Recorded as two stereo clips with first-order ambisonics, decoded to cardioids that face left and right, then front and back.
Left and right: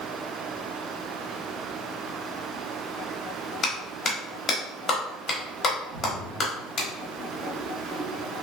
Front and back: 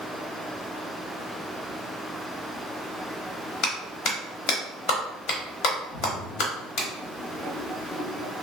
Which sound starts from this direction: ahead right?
A splash, at 5.9 s.